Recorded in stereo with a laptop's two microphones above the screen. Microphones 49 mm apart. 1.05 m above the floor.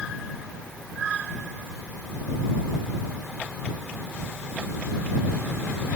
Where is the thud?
No thud in this recording.